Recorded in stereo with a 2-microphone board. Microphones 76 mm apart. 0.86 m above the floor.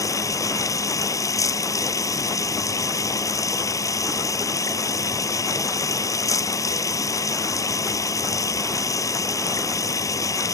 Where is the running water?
45° left (ahead or behind).